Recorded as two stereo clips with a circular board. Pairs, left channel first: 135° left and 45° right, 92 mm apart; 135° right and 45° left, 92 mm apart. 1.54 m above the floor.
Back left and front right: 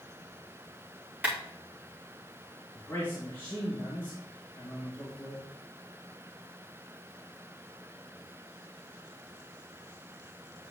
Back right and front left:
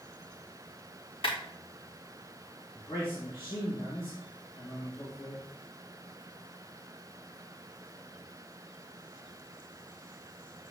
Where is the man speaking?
160° right, 2 m.